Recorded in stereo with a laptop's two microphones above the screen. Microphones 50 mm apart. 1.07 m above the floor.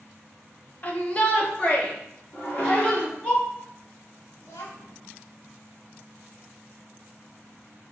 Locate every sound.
0.8 s a shout: 35° left (ahead or behind), 0.8 m; by 3.3 s 20° left (ahead or behind), 3 m
2.3 s dishes clattering: 35° left (ahead or behind), 1.4 m
4.4 s a child speaking: 60° left (ahead or behind), 1.0 m